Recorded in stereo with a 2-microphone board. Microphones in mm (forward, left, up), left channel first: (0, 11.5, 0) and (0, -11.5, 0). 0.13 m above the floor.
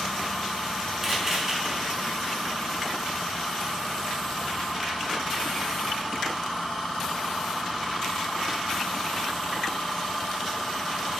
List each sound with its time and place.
1.0 s a camera shutter: 20° right (ahead or behind), 1.2 m